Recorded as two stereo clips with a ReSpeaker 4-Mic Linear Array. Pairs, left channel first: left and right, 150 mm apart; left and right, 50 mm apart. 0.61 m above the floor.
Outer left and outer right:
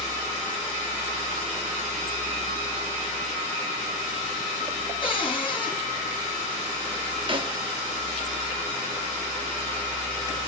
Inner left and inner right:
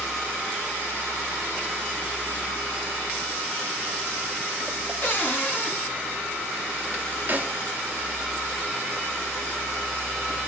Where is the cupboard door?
40° left (ahead or behind), 3.5 m.